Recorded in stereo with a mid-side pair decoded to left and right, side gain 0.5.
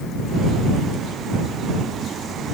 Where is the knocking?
No knocking in this recording.